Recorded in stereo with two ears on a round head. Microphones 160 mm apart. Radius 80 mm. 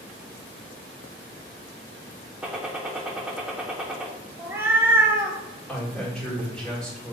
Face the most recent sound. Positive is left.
turn(degrees=5)  # may be behind; listen again after turning